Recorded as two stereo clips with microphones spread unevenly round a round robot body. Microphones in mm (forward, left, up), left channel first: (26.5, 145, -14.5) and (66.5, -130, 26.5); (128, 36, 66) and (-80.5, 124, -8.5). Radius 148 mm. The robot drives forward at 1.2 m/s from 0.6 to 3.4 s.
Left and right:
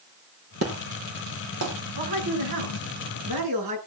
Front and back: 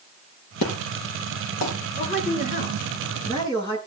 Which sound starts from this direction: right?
A man speaking, at 2.0 s.